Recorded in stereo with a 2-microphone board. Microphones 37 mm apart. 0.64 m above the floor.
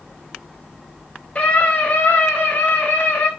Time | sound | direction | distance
1.4 | a scream | 35° left (ahead or behind) | 3 m